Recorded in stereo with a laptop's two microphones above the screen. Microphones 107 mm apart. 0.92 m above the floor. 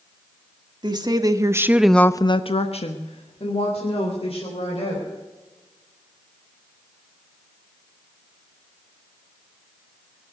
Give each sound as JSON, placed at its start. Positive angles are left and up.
{"t": 0.8, "sound": "a woman speaking", "side_deg": -45, "distance_m": 1.9}